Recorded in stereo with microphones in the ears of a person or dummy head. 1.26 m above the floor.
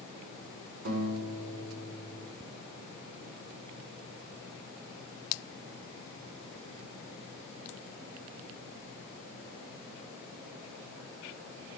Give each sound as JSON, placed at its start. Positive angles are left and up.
{"t": 0.8, "sound": "a guitar", "side_deg": -65, "distance_m": 4.0}